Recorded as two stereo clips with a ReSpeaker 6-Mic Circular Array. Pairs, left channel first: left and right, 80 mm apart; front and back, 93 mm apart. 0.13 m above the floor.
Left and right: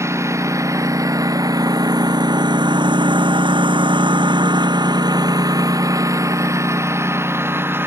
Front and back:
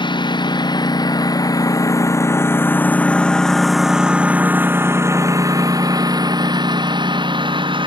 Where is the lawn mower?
35° right; by 7.9 s 150° right.